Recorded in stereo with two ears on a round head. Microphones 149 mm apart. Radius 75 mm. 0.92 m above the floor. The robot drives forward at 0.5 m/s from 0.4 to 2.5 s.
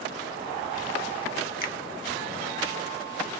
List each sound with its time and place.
1.6 s a finger snap: 55° left (ahead or behind), 1.4 m